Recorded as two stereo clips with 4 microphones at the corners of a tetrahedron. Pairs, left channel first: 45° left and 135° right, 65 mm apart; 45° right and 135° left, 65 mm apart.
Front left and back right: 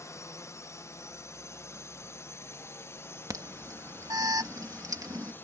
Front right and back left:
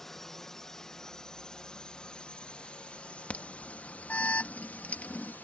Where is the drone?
40° left; by 5.5 s 5° left.